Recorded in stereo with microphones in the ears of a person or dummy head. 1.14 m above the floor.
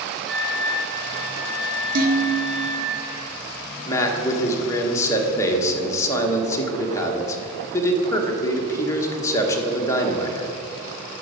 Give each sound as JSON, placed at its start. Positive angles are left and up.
{"t": 0.3, "sound": "a flute", "side_deg": -10, "distance_m": 1.5}
{"t": 1.9, "sound": "dishes clattering", "side_deg": -60, "distance_m": 1.6}
{"t": 3.9, "sound": "a man speaking", "side_deg": 15, "distance_m": 1.3}